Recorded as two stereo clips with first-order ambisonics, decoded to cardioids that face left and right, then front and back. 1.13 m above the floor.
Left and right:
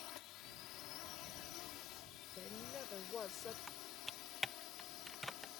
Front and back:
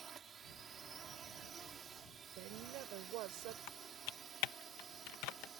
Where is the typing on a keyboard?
5° left.